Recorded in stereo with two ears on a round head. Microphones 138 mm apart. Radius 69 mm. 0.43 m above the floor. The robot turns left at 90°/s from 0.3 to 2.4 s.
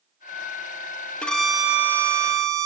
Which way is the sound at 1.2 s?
10° left (ahead or behind).